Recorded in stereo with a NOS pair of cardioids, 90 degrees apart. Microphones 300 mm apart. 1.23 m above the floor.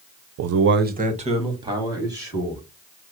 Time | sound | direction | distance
0.4 | a man speaking | 70° right | 0.5 m